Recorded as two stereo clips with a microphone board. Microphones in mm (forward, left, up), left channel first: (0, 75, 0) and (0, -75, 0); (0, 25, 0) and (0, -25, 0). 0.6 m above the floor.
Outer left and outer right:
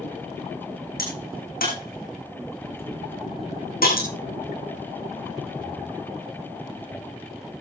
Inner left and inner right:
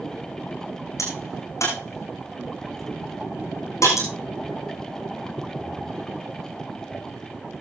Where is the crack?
85° left, 7.5 m.